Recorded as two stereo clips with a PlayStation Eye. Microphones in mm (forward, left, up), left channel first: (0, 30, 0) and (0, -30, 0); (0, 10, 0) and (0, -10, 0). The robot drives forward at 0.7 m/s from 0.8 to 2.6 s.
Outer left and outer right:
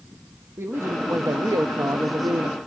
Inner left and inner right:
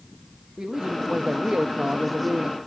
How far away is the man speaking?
About 1.1 m.